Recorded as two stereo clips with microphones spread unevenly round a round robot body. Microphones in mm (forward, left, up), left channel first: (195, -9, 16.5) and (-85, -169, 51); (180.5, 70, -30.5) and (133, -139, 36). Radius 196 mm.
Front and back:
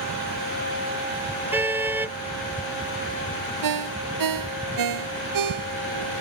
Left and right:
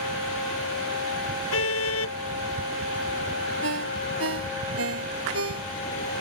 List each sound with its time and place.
1.5 s a car horn: 125° left
3.6 s a ringtone: 135° right